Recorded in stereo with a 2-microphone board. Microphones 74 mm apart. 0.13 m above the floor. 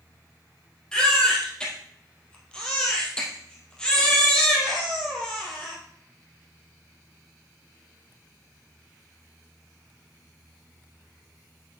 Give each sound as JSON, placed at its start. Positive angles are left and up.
{"t": 0.9, "sound": "a baby crying", "side_deg": 10, "distance_m": 2.5}